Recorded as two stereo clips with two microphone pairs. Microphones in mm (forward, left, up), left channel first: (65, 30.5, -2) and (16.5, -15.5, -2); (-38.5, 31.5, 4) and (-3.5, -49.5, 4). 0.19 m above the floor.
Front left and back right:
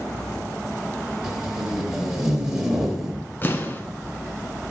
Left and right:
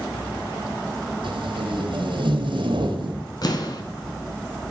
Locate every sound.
1.2 s tape being pulled: 55° right, 1.4 m
3.4 s an explosion: 90° left, 1.1 m